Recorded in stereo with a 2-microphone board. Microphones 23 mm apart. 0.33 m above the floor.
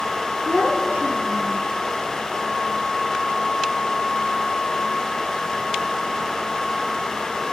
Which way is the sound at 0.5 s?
75° right (ahead or behind).